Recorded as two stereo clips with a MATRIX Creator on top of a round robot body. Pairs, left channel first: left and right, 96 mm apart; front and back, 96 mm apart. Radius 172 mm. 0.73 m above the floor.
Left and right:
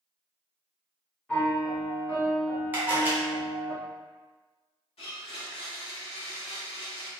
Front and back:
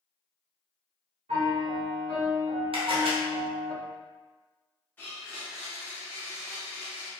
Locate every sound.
1.3 s a piano: 170° left, 1.6 m
2.7 s a camera shutter: 160° right, 0.9 m
5.0 s a blender: 75° left, 0.5 m